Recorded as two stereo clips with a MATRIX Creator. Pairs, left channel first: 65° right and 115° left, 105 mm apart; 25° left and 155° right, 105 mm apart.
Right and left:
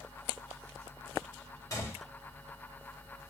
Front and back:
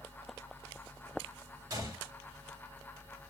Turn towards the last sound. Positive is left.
turn(degrees=-115)